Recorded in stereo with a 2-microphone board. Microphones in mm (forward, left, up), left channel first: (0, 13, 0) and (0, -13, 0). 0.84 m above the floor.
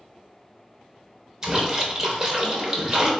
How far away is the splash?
About 0.9 m.